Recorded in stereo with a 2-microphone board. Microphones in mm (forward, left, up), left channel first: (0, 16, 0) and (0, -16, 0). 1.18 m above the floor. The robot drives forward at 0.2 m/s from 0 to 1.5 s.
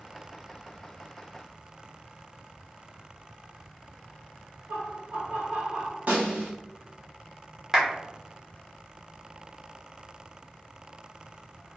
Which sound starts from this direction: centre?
A clap, at 7.7 s.